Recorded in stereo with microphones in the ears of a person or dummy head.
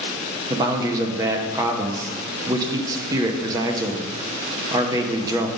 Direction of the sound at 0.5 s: 15° right (ahead or behind).